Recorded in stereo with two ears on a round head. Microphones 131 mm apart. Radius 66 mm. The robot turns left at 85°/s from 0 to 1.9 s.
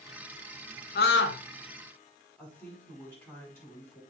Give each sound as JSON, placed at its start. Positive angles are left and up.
{"t": 0.9, "sound": "a scream", "azimuth_deg": 110, "distance_m": 1.3}
{"t": 2.4, "sound": "a woman speaking", "side_deg": 15, "distance_m": 5.0}